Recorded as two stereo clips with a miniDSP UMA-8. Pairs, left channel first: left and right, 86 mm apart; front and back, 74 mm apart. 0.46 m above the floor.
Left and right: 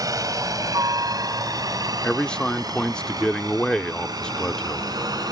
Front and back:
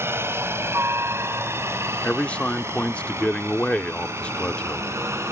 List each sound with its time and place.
0.0 s a helicopter: 130° right
2.0 s a man speaking: 30° left